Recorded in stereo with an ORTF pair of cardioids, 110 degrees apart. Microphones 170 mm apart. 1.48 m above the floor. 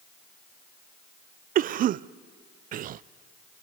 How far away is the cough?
About 0.5 m.